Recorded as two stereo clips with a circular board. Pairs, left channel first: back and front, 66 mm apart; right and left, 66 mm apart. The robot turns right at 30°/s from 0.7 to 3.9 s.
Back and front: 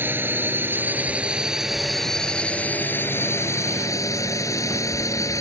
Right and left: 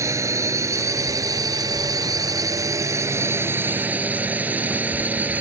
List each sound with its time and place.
0.0 s a drone: 55° left; by 5.4 s 150° left